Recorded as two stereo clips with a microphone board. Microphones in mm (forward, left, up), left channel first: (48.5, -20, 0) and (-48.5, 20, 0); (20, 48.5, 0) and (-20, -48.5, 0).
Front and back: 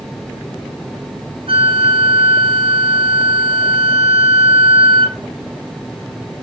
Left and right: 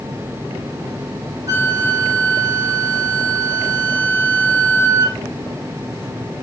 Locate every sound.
1.5 s a flute: 170° right, 2 m